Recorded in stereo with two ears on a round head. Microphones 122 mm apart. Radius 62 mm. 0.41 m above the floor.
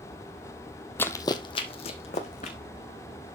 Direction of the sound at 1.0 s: 15° left (ahead or behind).